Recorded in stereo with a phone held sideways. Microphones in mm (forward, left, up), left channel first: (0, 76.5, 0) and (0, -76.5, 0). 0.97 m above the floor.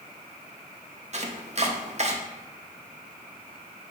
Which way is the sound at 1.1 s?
45° right (ahead or behind).